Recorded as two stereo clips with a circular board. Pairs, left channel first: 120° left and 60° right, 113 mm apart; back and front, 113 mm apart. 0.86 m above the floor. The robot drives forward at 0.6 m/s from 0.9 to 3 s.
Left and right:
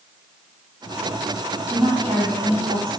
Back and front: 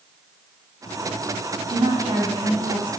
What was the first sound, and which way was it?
A woman speaking, 30° right.